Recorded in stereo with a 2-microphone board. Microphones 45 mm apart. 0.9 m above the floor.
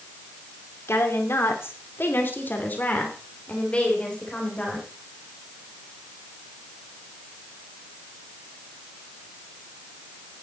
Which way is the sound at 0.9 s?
75° left (ahead or behind).